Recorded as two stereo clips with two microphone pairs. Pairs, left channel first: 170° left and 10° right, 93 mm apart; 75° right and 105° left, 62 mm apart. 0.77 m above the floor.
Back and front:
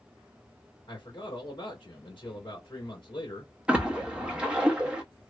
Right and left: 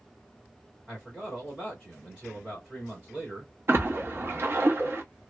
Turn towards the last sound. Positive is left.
turn(degrees=65)